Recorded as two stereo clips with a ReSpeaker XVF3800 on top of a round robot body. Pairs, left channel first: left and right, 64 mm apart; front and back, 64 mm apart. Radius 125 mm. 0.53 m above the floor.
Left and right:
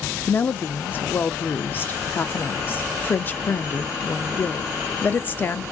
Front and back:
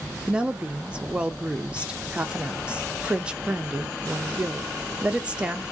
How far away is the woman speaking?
About 0.8 m.